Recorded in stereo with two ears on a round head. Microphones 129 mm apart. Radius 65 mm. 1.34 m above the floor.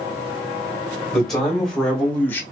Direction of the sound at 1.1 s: Centre (ahead or behind).